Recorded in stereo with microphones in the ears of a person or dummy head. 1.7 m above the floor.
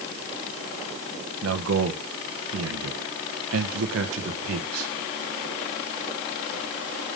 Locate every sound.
1.4 s a man speaking: 80° right, 1.6 m